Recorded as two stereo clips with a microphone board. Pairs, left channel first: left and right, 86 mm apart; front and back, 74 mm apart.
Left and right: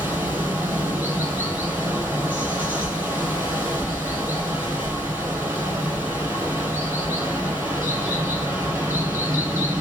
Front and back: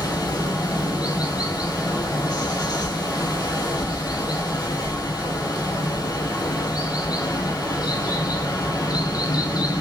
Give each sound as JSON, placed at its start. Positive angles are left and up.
{"t": 0.0, "sound": "running water", "azimuth_deg": -20, "distance_m": 1.2}